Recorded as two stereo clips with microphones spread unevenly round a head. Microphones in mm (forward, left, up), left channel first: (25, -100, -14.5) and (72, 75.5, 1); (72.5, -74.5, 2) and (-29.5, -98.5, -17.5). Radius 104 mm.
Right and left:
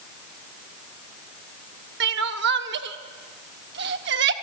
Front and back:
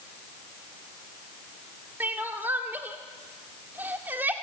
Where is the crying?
110° left, 1.2 m.